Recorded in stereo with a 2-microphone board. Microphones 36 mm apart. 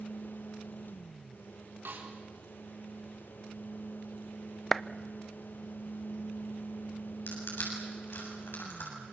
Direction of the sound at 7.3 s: 75° left (ahead or behind).